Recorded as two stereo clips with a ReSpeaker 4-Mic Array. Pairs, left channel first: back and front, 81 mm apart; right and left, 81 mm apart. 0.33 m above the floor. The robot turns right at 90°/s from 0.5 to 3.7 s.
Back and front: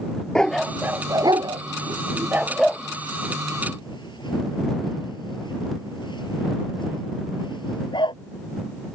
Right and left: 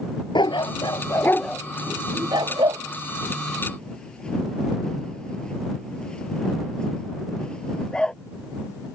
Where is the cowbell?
No cowbell in this recording.